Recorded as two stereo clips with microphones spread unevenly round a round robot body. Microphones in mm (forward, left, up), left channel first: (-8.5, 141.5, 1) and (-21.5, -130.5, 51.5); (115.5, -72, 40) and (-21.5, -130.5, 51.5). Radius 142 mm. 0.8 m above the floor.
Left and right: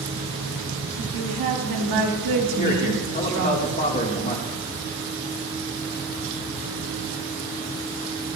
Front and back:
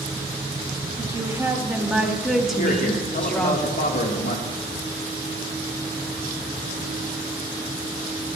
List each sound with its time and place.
1.0 s a woman speaking: 90° right, 3 m; by 3.6 s 55° right, 3.5 m
2.6 s a man speaking: 30° left, 2.0 m